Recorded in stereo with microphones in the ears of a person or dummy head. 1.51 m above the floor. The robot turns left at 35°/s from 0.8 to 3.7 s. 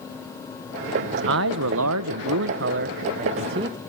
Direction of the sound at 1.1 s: 70° right.